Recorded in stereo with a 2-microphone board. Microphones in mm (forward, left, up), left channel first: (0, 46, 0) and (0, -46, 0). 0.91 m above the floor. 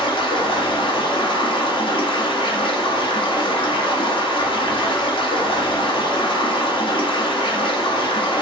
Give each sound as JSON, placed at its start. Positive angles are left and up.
{"t": 0.0, "sound": "running water", "side_deg": 65, "distance_m": 0.8}